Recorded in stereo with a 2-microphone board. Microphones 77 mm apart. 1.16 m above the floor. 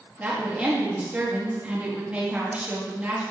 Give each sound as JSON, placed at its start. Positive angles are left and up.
{"t": 0.2, "sound": "a woman speaking", "side_deg": -20, "distance_m": 1.3}